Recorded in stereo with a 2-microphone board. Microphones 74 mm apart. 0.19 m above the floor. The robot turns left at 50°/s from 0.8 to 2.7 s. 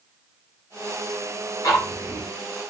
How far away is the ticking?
About 2 m.